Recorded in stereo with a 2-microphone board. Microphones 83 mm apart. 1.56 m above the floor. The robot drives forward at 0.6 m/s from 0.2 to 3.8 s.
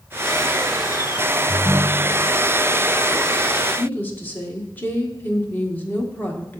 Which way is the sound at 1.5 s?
25° left (ahead or behind).